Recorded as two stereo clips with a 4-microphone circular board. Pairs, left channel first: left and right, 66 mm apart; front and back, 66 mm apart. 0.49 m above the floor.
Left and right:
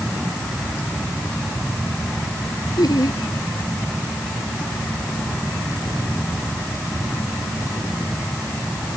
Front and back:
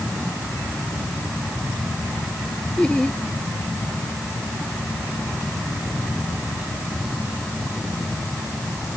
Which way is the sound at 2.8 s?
75° left.